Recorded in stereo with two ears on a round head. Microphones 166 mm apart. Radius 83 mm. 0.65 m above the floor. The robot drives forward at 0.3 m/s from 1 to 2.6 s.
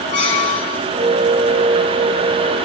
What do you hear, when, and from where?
0.1 s a squeak: 40° left (ahead or behind), 1.7 m